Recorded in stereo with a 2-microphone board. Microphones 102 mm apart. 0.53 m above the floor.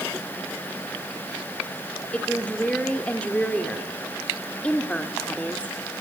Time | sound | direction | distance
2.1 | a woman speaking | 10° left (ahead or behind) | 1.6 m